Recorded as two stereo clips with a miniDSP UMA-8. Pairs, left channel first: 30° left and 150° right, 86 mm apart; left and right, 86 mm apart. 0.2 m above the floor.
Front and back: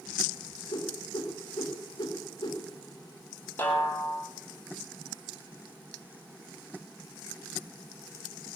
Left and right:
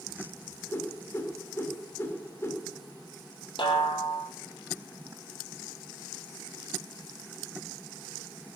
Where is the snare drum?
95° left, 3.5 m.